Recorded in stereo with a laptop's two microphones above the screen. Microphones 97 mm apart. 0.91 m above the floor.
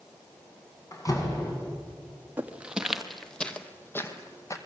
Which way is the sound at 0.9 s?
35° left (ahead or behind).